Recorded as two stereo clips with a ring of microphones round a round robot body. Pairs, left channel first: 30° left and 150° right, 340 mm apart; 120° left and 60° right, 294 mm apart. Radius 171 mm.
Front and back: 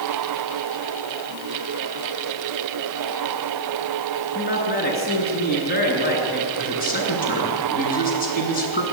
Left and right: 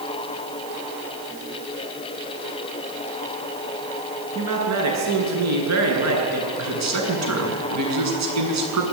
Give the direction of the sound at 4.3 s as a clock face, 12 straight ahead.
1 o'clock.